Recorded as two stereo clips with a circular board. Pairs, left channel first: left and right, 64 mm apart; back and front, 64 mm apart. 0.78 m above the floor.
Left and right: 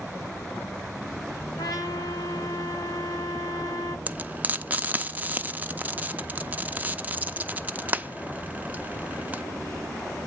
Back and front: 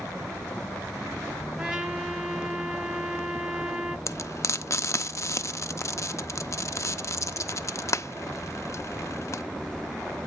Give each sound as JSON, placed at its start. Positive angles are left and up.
{"t": 1.6, "sound": "a trumpet", "azimuth_deg": 75, "distance_m": 1.5}
{"t": 4.1, "sound": "frying", "azimuth_deg": -150, "distance_m": 0.5}